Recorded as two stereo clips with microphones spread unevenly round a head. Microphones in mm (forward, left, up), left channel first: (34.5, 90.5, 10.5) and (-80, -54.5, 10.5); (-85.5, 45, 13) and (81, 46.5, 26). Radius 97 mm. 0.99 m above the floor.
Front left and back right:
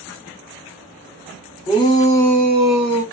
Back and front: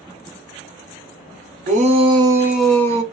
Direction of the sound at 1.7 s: Straight ahead.